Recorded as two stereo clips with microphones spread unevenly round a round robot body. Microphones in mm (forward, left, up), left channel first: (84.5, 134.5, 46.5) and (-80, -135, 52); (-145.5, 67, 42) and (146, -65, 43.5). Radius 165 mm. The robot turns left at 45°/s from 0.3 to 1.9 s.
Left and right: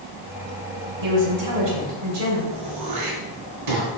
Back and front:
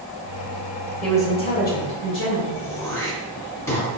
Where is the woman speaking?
115° right, 2.5 m; by 2.4 s 155° right, 2.5 m.